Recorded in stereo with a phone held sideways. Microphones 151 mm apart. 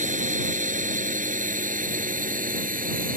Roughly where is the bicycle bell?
I don't hear a bicycle bell.